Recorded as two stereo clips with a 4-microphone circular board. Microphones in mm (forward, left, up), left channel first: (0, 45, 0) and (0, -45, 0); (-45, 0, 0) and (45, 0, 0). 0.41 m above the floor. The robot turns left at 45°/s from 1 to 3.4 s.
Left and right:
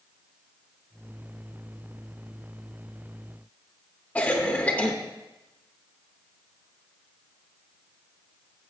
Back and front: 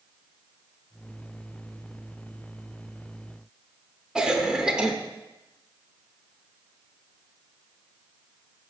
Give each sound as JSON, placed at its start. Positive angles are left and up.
{"t": 4.2, "sound": "a cough", "azimuth_deg": 65, "distance_m": 0.7}